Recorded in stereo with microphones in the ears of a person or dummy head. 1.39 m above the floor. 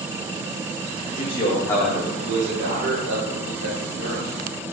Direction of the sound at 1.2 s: 35° left (ahead or behind).